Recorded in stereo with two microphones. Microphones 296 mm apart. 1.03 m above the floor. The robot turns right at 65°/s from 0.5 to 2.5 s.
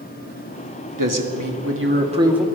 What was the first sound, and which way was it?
A man speaking, 95° right.